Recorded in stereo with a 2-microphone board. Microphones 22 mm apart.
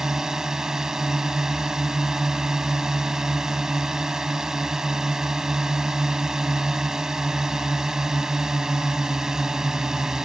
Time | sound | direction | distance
0.0 | a drone | 20° right (ahead or behind) | ?